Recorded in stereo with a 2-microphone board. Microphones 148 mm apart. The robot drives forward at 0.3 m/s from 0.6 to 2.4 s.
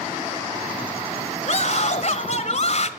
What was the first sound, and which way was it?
A scream, 55° left (ahead or behind).